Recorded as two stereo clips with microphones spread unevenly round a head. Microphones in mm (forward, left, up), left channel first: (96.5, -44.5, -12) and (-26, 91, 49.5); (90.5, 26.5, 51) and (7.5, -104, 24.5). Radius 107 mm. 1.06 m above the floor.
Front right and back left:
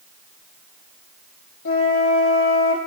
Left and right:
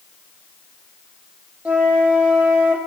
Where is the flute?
40° right, 1.0 m.